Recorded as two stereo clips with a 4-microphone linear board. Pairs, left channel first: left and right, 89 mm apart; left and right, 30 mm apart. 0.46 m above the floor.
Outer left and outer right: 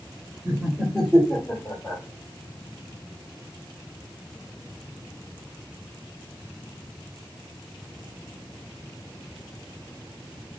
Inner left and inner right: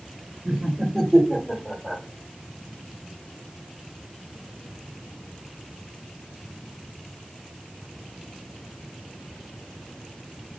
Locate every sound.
0.5 s laughter: 20° right (ahead or behind), 1.4 m; by 2.0 s 25° left (ahead or behind), 1.8 m